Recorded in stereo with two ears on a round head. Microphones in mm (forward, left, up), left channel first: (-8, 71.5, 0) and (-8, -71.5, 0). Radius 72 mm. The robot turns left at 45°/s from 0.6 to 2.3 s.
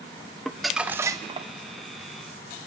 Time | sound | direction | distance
0.5 | crumpling | 5° left | 0.8 m